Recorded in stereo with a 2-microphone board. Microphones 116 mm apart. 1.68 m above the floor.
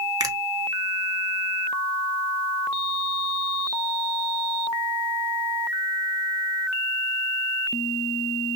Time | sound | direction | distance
0.2 | a finger snap | 35° right (ahead or behind) | 0.9 m